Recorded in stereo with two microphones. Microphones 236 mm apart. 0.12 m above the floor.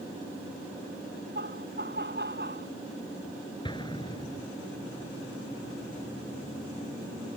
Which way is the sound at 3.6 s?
20° left (ahead or behind).